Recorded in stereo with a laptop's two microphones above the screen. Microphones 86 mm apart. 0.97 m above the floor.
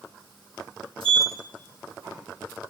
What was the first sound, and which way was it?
A sliding door, 85° right.